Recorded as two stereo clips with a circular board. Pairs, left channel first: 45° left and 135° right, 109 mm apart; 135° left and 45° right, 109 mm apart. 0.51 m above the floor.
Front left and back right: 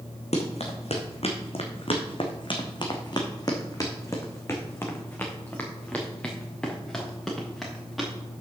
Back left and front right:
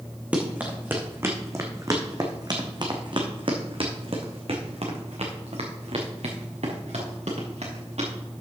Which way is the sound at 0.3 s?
35° left.